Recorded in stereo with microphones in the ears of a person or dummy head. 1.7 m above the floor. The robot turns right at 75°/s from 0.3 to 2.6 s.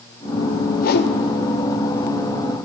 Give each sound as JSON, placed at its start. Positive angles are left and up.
{"t": 0.8, "sound": "a whoosh", "side_deg": 45, "distance_m": 0.9}